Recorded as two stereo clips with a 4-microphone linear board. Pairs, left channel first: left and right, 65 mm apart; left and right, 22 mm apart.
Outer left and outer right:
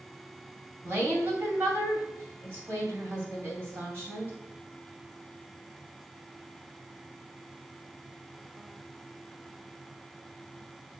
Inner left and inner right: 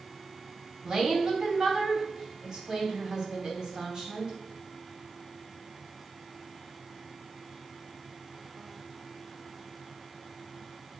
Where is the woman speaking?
30° right (ahead or behind), 2.5 m.